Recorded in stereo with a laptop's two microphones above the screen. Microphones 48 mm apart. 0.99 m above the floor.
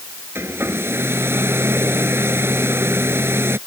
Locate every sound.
0.3 s a hair dryer: 50° right (ahead or behind)